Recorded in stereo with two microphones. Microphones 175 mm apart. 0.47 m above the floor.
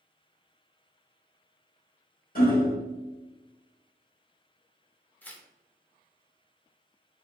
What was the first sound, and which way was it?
Hammering, 55° left (ahead or behind).